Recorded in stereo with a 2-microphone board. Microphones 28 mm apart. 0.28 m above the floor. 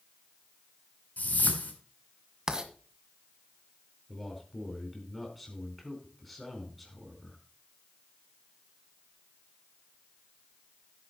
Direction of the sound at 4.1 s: 5° left (ahead or behind).